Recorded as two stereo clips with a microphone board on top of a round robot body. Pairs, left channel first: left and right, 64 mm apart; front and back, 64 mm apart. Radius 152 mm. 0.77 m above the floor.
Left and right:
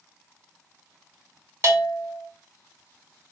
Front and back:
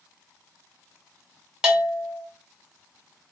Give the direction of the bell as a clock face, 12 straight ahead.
4 o'clock.